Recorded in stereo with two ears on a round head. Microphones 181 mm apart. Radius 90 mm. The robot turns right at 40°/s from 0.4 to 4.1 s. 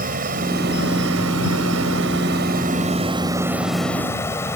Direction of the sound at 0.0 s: 135° right.